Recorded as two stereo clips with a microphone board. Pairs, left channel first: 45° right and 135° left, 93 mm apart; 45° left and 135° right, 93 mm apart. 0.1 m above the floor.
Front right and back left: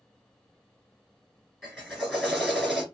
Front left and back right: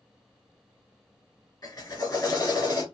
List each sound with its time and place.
1.6 s a drill: 35° left, 1.7 m